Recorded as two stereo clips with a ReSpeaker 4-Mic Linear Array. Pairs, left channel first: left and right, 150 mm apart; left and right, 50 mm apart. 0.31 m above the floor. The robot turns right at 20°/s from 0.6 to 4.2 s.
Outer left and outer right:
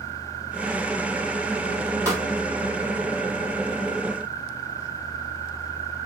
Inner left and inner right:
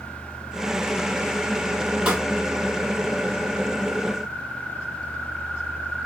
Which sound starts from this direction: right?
A pop, at 2.0 s.